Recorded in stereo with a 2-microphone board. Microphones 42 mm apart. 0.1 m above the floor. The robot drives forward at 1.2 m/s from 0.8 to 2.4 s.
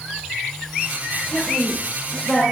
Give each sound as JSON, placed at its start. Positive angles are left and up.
{"t": 1.3, "sound": "a woman speaking", "side_deg": -5, "distance_m": 5.5}